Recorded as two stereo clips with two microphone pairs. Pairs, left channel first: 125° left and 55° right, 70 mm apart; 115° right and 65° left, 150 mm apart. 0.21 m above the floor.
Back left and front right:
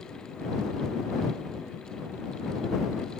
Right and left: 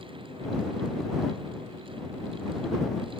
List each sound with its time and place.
Only background noise.